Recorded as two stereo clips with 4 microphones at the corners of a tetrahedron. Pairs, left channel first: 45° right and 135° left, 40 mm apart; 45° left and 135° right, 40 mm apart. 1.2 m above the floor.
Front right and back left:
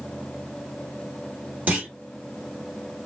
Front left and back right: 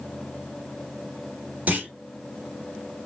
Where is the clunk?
Straight behind, 1.5 m.